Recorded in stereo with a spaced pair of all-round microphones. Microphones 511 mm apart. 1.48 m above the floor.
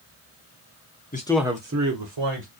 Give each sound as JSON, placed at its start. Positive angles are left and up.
{"t": 1.1, "sound": "a man speaking", "side_deg": 20, "distance_m": 0.6}